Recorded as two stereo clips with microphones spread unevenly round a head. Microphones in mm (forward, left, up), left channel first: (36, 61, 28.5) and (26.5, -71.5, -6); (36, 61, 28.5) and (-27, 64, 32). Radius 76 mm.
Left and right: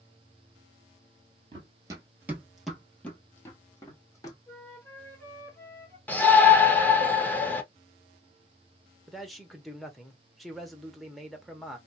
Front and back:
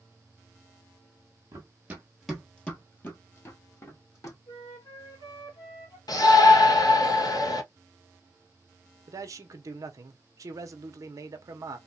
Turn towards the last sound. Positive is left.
turn(degrees=-170)